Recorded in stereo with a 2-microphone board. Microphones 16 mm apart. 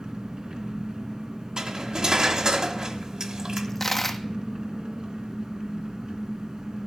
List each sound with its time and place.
0.0 s an engine running: 75° right (ahead or behind), 2.5 m
1.6 s cutlery clinking: 55° right (ahead or behind), 1.4 m
3.6 s a dropped coin: 15° left (ahead or behind), 1.0 m